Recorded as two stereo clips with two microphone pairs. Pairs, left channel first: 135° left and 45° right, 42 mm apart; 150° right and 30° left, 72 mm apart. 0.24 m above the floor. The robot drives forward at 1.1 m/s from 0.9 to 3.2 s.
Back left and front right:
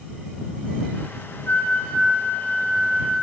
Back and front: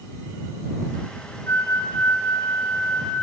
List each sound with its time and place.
1.5 s a flute: 165° left, 1.3 m; by 3.1 s 175° left, 3 m